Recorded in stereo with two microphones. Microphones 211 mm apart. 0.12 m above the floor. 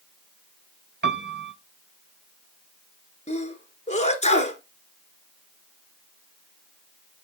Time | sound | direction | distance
1.0 | a piano | 60° right (ahead or behind) | 0.5 m
3.3 | a sneeze | 30° left (ahead or behind) | 1.4 m